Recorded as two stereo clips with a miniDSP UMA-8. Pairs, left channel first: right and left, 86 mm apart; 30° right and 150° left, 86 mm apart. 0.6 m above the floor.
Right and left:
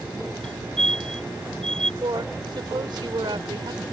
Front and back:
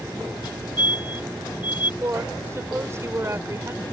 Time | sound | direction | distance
0.4 | a fire alarm | 10° right | ?
2.0 | a woman speaking | 100° left | ?